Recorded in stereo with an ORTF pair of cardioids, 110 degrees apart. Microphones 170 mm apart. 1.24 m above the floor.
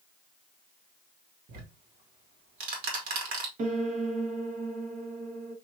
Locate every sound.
1.5 s ticking: 60° right, 1.9 m
3.6 s a piano: 50° right, 1.2 m